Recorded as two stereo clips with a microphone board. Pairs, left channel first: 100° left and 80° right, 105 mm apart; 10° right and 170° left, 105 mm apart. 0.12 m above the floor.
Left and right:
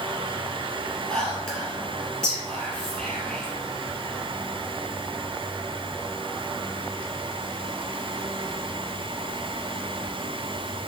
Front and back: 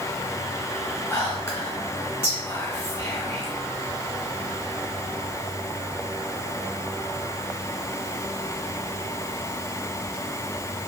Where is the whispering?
30° left, 1.8 m.